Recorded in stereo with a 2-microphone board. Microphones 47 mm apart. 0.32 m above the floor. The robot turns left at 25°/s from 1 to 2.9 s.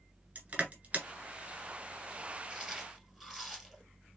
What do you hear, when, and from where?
0.3 s crushing: 35° right (ahead or behind), 1.9 m; by 1.1 s 30° right (ahead or behind), 1.9 m
2.5 s chewing: 15° right (ahead or behind), 1.6 m; by 3.8 s 5° right (ahead or behind), 1.6 m